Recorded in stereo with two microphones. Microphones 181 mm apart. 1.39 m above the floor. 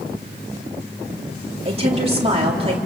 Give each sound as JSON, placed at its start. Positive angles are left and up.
{"t": 1.6, "sound": "a woman speaking", "side_deg": -35, "distance_m": 3.5}